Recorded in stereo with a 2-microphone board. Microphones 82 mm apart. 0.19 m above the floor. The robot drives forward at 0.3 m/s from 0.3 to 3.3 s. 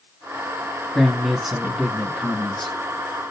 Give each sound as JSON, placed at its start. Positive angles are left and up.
{"t": 0.9, "sound": "a man speaking", "side_deg": 0, "distance_m": 1.3}